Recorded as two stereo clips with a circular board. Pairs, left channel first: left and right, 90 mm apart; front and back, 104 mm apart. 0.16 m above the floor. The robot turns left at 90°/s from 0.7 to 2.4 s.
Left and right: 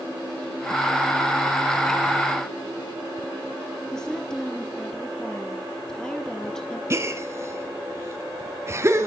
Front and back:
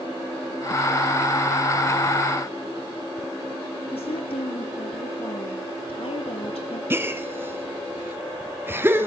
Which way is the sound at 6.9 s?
125° right.